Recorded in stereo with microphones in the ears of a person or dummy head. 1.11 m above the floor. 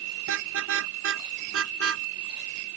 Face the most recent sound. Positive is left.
turn(degrees=-80)